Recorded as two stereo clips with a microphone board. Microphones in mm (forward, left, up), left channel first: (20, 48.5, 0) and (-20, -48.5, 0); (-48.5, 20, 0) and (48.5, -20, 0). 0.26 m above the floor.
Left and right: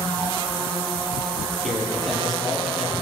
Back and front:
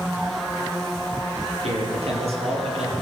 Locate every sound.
1.6 s a man speaking: 20° right, 8.5 m